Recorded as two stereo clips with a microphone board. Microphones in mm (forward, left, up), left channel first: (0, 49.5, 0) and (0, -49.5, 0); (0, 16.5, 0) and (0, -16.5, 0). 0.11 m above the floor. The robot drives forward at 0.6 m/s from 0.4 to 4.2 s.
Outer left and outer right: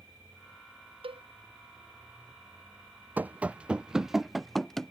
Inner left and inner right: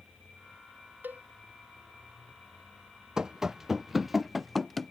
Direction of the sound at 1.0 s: 70° right (ahead or behind).